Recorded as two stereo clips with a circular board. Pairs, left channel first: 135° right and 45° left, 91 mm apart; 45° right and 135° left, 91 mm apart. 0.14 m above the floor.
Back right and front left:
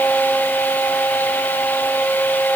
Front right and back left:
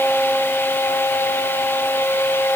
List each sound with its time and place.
Only background noise.